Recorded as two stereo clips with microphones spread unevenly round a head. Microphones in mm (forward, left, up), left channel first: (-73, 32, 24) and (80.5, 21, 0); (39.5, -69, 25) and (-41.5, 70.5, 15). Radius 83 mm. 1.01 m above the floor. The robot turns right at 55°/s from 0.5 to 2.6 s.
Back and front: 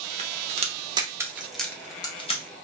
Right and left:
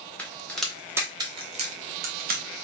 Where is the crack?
25° left, 0.8 m; by 2.4 s 130° left, 0.8 m.